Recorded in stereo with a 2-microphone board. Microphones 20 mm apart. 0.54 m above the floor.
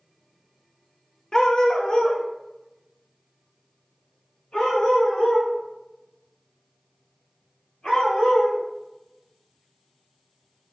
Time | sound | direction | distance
1.3 | a dog barking | 35° left (ahead or behind) | 0.5 m